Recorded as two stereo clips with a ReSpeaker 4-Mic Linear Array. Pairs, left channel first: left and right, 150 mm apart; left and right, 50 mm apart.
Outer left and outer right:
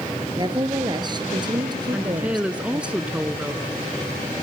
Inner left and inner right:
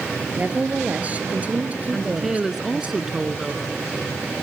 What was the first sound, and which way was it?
A woman speaking, 30° right (ahead or behind).